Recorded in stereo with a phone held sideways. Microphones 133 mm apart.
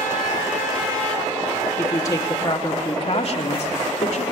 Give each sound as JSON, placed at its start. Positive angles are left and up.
{"t": 1.8, "sound": "a woman speaking", "side_deg": 20, "distance_m": 1.8}